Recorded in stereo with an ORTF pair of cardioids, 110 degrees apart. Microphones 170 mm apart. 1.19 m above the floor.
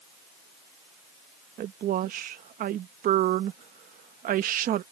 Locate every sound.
1.6 s a woman speaking: 55° right